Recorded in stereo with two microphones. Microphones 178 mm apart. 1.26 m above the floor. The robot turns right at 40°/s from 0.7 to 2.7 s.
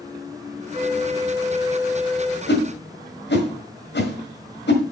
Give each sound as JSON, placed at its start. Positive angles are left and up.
{"t": 0.7, "sound": "a flute", "azimuth_deg": -60, "distance_m": 1.2}
{"t": 2.5, "sound": "a whoosh", "side_deg": 70, "distance_m": 1.6}